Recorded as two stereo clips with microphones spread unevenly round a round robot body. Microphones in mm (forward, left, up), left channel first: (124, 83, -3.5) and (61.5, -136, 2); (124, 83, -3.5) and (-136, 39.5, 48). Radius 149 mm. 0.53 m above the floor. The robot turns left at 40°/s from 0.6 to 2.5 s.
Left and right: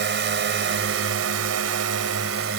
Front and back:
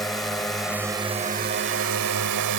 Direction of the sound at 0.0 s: 75° right.